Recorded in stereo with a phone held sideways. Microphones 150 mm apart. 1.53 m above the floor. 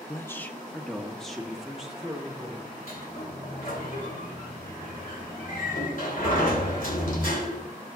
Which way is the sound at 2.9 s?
70° left (ahead or behind).